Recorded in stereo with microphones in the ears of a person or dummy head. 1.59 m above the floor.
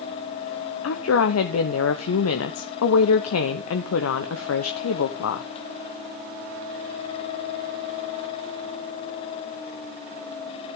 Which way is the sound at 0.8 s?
80° left.